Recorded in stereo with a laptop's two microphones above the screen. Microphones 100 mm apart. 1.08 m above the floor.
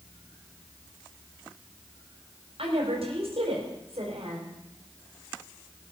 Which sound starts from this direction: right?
A woman speaking, at 2.6 s.